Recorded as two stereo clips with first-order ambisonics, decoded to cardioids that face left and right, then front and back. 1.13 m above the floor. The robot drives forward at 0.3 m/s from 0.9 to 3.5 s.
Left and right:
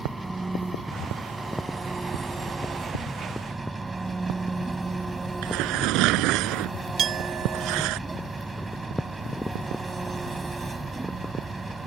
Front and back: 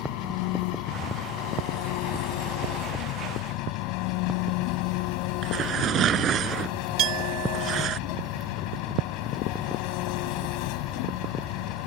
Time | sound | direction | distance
0.0 | an engine running | 10° right | ?
5.4 | tearing paper | 120° right | ?
7.0 | a clink | 145° right | ?